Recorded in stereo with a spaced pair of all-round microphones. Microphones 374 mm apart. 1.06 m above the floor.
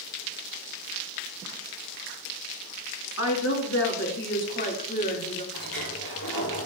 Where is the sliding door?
65° left (ahead or behind), 5 m.